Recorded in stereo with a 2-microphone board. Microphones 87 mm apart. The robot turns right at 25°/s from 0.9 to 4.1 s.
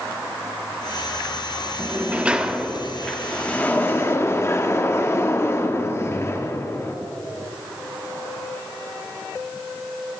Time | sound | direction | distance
1.8 | a sliding door | 25° right | 0.7 m